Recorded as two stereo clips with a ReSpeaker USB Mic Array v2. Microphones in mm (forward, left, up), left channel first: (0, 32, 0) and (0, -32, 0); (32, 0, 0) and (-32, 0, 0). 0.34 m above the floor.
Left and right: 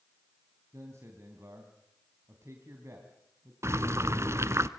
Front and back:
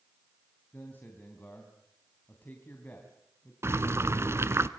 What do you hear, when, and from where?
0.7 s a man speaking: 55° right, 3 m
3.6 s boiling: 135° right, 1.0 m